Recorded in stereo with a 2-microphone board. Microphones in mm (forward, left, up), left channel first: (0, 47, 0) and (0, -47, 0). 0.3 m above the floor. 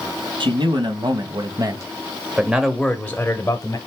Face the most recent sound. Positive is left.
turn(degrees=40)  # may be behind; listen again after turning